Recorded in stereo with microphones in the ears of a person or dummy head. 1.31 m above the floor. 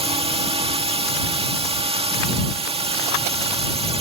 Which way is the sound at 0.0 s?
25° right (ahead or behind).